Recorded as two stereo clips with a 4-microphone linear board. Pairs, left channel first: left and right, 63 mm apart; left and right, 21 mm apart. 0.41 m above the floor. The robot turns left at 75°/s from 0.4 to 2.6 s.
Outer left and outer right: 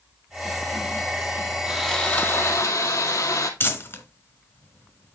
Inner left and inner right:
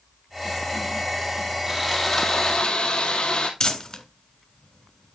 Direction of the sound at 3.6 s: 40° left (ahead or behind).